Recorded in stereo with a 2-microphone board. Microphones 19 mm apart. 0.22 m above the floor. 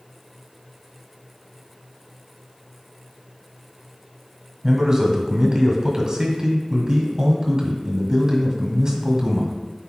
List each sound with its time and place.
4.6 s a man speaking: 35° right (ahead or behind), 1.6 m